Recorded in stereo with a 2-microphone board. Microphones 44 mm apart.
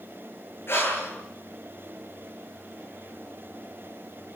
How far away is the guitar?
No guitar in this recording.